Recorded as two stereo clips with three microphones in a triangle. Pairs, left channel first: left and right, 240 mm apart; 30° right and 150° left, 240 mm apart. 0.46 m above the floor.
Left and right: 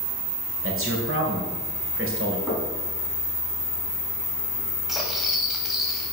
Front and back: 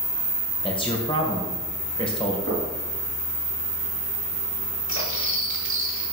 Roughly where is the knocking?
Behind.